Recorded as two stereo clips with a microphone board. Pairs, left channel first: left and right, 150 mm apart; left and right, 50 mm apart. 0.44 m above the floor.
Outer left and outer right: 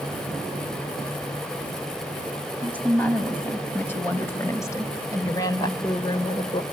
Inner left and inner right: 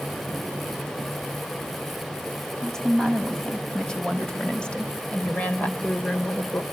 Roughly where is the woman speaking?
Centre.